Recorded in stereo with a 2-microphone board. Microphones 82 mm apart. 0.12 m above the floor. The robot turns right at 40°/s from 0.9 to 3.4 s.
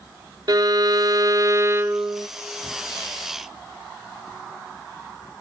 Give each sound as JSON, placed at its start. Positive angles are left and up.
{"t": 0.5, "sound": "a violin", "azimuth_deg": -80, "distance_m": 0.5}